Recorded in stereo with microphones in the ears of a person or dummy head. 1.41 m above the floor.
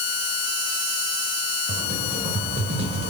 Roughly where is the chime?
No chime in this recording.